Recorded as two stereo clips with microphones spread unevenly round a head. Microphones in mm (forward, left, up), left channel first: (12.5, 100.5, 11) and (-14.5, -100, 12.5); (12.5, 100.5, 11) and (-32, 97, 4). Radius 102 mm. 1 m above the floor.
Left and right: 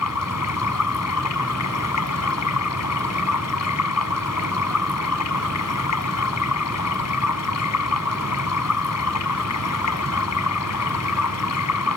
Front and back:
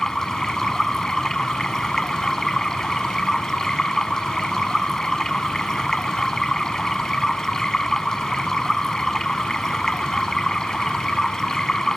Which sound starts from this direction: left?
Running water, at 0.0 s.